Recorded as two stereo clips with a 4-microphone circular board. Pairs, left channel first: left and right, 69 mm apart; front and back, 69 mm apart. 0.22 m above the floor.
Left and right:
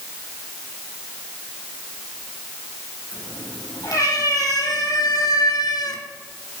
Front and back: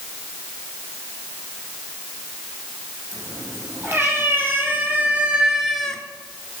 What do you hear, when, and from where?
3.1 s a cat meowing: 130° left, 4 m; by 6.0 s 75° left, 1.2 m